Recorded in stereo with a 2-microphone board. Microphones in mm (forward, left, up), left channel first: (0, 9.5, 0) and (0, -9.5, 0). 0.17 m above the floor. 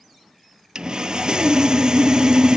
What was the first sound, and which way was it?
Sawing, 50° right (ahead or behind).